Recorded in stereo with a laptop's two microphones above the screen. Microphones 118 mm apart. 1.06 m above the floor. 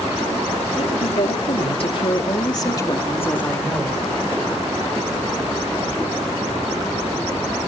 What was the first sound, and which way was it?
A woman speaking, 70° left (ahead or behind).